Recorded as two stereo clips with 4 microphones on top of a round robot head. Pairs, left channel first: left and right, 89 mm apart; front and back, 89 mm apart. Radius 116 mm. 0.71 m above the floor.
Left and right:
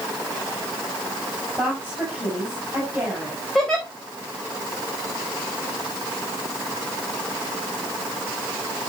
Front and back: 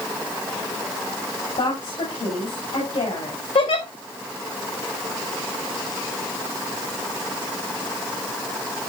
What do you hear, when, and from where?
1.6 s a woman speaking: 5° right, 5 m
3.5 s a giggle: 5° left, 3.5 m